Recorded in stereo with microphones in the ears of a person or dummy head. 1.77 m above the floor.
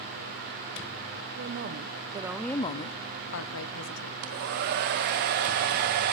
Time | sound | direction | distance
1.4 | a woman speaking | 50° right (ahead or behind) | 1.6 m
4.2 | a hair dryer | 45° right (ahead or behind) | 1.2 m